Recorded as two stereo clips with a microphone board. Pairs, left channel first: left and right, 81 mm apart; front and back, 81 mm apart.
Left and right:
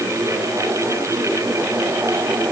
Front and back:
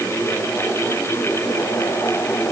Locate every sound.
Only background noise.